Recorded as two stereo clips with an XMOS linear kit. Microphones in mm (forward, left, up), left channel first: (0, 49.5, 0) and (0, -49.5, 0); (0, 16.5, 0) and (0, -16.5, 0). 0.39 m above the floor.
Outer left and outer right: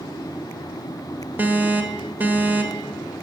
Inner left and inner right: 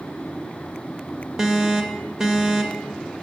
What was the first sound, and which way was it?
An alarm, 20° right (ahead or behind).